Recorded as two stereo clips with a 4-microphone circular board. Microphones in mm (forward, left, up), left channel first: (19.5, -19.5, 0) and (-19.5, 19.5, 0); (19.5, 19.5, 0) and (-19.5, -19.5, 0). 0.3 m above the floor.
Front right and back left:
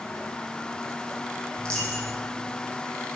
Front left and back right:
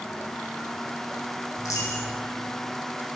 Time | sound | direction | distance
1.6 | a dropped coin | 25° left | 2 m